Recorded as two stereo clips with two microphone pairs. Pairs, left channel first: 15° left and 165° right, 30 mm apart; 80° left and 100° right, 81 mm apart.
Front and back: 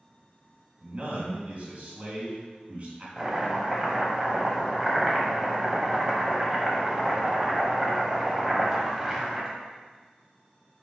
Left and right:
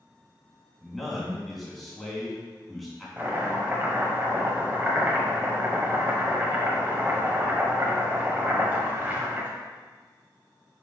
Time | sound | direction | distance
0.8 | a man speaking | 165° left | 2.5 m
3.2 | chopping | 120° right | 1.2 m